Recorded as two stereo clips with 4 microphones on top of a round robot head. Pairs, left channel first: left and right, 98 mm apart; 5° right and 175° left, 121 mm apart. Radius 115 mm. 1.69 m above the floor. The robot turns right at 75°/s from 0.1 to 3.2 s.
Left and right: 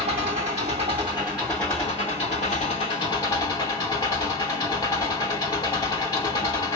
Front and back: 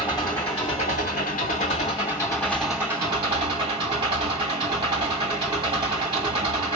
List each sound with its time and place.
0.0 s an engine running: 100° right, 2.5 m; by 6.8 s 130° left, 2.5 m